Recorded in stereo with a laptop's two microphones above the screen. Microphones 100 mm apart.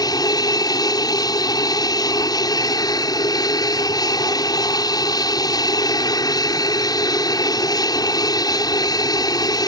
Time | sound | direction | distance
0.0 | an aircraft | 40° left (ahead or behind) | ?